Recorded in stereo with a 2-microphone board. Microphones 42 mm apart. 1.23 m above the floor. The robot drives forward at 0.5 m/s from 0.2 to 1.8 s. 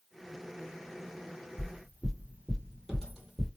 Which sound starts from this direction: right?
Footsteps, at 1.6 s.